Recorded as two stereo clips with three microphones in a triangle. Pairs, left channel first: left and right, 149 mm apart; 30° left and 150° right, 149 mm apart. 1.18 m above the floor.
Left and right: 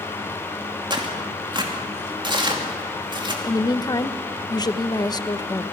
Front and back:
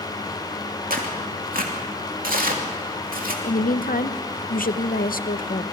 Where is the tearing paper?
145° right, 2.5 m.